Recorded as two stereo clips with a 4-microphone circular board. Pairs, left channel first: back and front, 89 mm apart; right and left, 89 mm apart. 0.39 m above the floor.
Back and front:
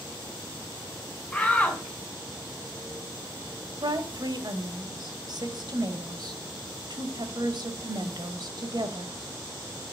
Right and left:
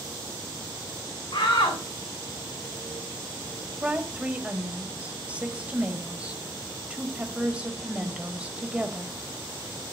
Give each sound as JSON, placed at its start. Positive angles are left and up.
{"t": 1.3, "sound": "a shout", "azimuth_deg": -100, "distance_m": 4.0}
{"t": 3.8, "sound": "a woman speaking", "azimuth_deg": 15, "distance_m": 1.4}